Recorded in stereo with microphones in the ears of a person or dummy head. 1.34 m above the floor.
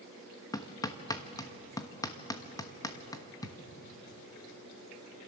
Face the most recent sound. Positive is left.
turn(degrees=20)  # may be behind; listen again after turning